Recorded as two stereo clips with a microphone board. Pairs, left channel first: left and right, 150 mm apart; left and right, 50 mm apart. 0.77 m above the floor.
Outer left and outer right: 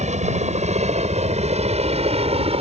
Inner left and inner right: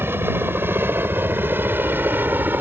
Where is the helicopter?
50° right (ahead or behind); by 2.6 s 40° right (ahead or behind).